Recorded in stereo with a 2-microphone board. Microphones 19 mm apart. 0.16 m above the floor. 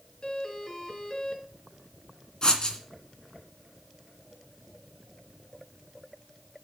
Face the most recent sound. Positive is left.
turn(degrees=40)  # may be behind; listen again after turning